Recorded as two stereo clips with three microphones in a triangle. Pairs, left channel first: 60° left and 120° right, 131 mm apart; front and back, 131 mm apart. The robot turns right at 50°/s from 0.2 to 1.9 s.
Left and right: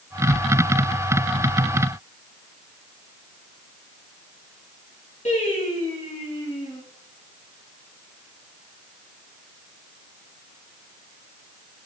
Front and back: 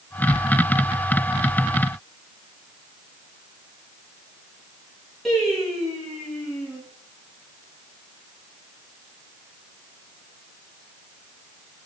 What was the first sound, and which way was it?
Singing, 90° left.